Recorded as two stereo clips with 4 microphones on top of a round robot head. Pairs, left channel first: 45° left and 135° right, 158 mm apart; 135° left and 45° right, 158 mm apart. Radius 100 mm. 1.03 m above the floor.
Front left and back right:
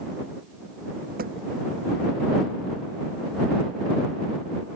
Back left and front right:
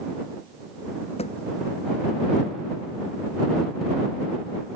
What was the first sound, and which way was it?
A thud, 170° right.